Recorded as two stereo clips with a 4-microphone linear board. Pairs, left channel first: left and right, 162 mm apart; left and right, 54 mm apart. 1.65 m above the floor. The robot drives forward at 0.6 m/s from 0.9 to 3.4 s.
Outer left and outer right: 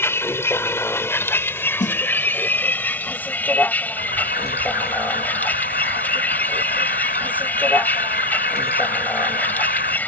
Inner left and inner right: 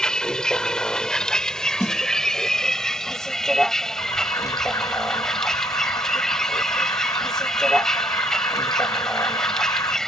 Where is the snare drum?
50° left (ahead or behind); by 2.0 s 55° left (ahead or behind).